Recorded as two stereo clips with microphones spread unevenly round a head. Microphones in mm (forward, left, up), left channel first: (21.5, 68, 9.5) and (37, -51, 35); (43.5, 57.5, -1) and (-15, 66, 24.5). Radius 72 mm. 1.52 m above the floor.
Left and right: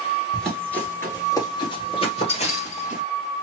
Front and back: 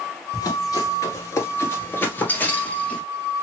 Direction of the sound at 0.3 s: 10° right.